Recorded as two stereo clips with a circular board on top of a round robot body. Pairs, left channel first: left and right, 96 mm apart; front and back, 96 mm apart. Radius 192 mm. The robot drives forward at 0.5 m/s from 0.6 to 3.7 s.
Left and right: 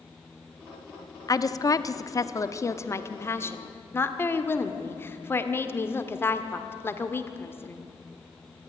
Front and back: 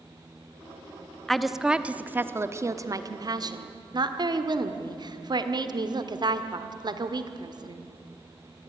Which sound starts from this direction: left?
A woman speaking, at 1.3 s.